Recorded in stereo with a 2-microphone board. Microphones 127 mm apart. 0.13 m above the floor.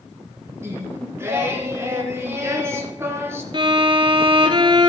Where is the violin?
40° right (ahead or behind), 0.9 m.